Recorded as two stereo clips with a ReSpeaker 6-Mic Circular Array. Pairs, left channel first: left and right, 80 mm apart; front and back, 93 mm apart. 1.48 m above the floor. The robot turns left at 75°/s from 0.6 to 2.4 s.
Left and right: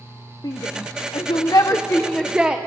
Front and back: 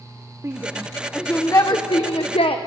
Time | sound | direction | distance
0.4 | a shout | 120° left | 1.1 m